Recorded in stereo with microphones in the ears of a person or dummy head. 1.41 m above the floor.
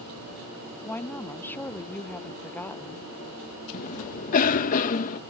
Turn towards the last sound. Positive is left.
turn(degrees=40)  # may be behind; listen again after turning